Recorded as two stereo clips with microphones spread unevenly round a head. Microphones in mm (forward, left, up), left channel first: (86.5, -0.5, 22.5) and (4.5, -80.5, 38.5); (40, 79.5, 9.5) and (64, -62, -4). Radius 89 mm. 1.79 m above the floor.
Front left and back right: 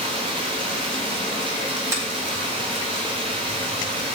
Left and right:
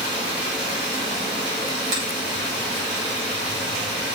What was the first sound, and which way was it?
Running water, 95° right.